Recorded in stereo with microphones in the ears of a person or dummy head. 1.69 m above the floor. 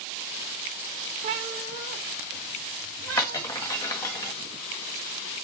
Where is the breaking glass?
15° left (ahead or behind), 1.3 m.